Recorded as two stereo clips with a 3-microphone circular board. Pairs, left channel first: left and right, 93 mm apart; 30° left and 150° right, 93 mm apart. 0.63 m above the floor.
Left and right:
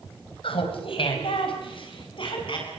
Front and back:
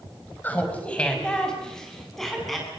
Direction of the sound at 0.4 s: 100° left.